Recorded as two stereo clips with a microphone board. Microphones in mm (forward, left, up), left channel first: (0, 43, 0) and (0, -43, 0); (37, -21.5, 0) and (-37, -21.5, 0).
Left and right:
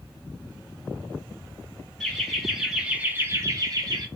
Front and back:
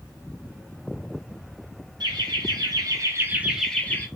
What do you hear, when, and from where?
2.0 s laughter: straight behind, 1.6 m; by 4.1 s 55° right, 0.9 m